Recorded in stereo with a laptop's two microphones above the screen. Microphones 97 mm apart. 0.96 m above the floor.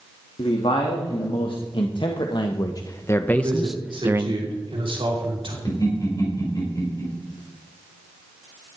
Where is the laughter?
45° left (ahead or behind), 5 m.